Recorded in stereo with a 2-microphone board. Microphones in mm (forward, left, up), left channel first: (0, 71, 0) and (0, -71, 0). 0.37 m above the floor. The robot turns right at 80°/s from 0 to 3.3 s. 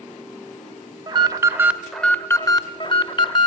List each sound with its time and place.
1.1 s an alarm: 65° right, 0.6 m; by 3.5 s 115° left, 0.6 m